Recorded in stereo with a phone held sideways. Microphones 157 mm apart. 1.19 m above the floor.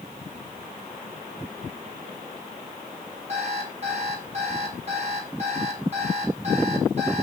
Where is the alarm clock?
45° right (ahead or behind), 5 m.